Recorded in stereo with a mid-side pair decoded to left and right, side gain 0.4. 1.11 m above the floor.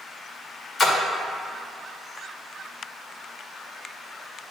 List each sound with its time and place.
0.8 s a splash: 50° left, 1.8 m